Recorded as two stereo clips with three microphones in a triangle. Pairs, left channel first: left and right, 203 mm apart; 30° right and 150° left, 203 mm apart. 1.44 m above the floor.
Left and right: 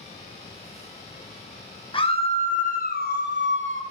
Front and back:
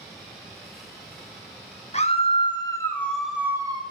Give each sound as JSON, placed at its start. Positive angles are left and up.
{"t": 1.9, "sound": "a scream", "azimuth_deg": 25, "distance_m": 1.7}